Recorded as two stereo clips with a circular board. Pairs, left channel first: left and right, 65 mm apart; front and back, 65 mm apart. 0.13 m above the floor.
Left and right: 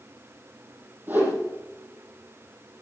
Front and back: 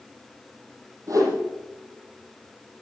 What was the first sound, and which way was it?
A whoosh, 150° right.